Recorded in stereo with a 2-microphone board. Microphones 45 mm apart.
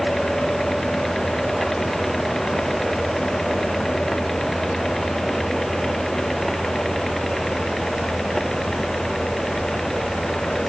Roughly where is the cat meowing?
No cat meowing in this recording.